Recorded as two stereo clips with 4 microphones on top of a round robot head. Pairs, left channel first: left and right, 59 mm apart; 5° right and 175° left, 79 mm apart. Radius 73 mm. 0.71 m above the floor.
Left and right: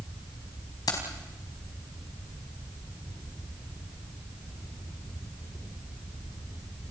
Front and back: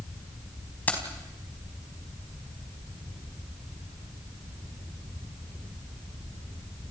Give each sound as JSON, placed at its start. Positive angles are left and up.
{"t": 0.9, "sound": "keys jangling", "azimuth_deg": 65, "distance_m": 4.0}